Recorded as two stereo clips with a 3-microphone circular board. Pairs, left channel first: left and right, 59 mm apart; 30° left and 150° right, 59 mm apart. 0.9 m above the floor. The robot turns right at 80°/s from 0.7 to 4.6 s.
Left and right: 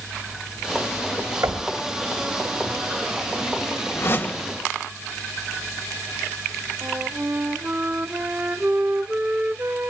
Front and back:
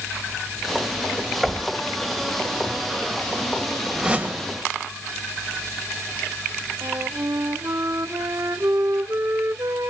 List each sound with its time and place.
1.4 s knocking: 65° right, 2.5 m; by 1.7 s 45° right, 2.5 m
4.0 s a whoosh: 130° left, 1.7 m; by 4.5 s 170° left, 1.7 m
6.8 s a flute: 140° right, 0.8 m